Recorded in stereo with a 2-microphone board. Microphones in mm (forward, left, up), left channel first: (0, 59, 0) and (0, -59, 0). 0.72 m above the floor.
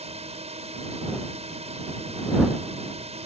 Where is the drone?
65° right (ahead or behind).